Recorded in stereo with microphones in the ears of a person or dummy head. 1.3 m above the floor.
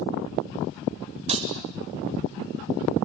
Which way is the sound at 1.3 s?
25° right (ahead or behind).